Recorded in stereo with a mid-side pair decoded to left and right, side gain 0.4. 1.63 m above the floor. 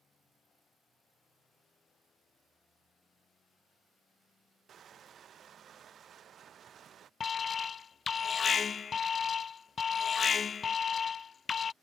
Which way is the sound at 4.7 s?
55° right.